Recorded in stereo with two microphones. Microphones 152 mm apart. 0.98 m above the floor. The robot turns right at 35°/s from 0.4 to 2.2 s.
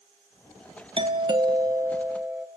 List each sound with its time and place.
1.0 s a doorbell: 65° right, 0.9 m; by 2.5 s 20° right, 0.9 m